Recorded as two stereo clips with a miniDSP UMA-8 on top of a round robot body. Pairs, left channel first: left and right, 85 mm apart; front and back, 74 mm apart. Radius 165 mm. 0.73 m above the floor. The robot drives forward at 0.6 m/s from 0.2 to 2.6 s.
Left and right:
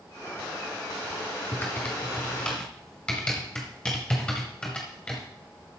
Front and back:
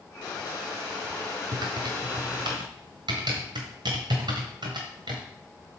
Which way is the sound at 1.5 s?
155° left.